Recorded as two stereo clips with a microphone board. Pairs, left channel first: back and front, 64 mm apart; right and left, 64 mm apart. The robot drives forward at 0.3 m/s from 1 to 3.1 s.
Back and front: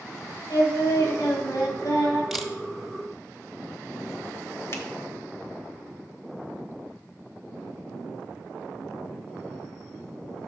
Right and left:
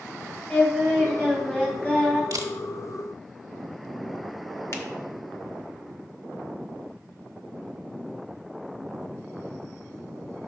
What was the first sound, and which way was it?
Singing, 155° right.